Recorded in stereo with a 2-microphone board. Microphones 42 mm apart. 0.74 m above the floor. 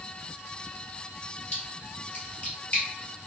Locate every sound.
1.5 s a splash: 35° left (ahead or behind), 1.6 m